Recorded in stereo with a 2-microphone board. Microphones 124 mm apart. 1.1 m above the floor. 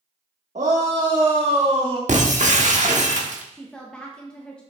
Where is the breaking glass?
75° right (ahead or behind), 1.2 m.